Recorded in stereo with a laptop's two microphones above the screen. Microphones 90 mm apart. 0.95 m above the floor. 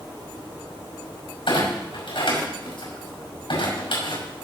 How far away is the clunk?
About 5.5 m.